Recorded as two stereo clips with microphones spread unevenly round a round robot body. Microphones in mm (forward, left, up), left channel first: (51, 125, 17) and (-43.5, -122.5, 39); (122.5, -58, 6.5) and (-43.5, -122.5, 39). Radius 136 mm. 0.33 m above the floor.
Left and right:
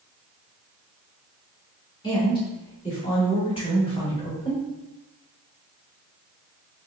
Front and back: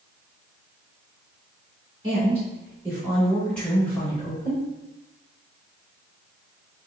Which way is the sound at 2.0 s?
120° left.